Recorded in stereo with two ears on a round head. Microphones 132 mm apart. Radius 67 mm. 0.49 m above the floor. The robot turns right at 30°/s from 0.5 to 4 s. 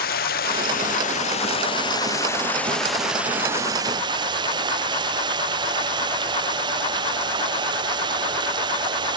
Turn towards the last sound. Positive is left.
turn(degrees=-150)